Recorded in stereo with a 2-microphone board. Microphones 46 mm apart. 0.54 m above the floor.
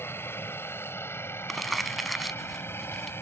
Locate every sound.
0.0 s a helicopter: 55° left (ahead or behind)
1.5 s crumpling: centre (ahead or behind)